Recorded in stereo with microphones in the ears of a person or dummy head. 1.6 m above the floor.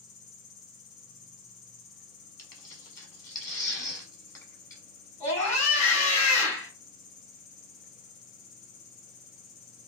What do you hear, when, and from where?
0.0 s an insect: 45° left (ahead or behind), 1.1 m
2.4 s tearing paper: 15° left (ahead or behind), 0.9 m
5.2 s a scream: 35° left (ahead or behind), 1.5 m